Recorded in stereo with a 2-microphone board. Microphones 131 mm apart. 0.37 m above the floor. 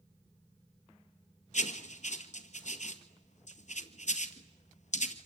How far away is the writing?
About 1.7 m.